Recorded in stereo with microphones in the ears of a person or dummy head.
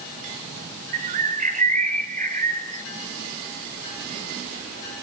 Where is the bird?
45° right (ahead or behind), 0.7 m.